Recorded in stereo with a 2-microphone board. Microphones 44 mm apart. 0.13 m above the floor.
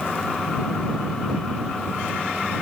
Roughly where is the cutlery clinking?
No cutlery clinking in this recording.